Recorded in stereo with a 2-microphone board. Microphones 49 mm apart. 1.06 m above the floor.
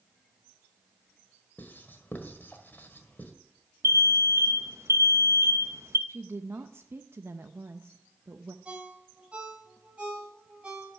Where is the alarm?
70° right (ahead or behind), 0.8 m.